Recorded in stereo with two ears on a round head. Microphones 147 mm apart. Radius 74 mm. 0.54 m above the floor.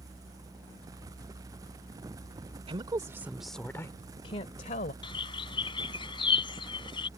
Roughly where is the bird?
Left.